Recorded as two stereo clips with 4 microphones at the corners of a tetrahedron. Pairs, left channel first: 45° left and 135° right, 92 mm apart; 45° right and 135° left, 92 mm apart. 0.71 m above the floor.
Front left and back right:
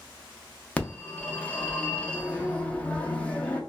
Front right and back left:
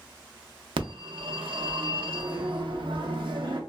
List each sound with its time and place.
0.8 s a phone ringing: 120° left, 0.5 m